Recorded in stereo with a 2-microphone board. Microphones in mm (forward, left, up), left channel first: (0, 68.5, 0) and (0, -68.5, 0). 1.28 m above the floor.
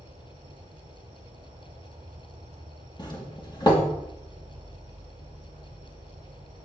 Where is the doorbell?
35° left (ahead or behind), 3 m.